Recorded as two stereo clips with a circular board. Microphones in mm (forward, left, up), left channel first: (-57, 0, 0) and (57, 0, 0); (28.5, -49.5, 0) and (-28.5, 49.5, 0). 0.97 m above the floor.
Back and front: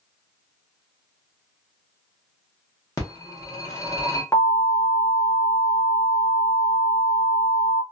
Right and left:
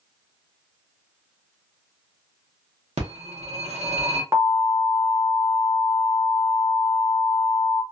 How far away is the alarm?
About 1.1 m.